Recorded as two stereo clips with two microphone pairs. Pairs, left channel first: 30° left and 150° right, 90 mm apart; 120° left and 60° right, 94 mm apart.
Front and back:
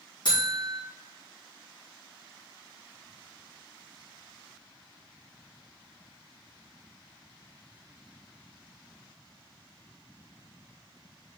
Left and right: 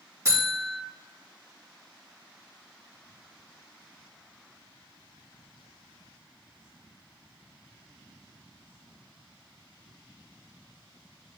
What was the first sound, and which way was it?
A buzzer, 5° right.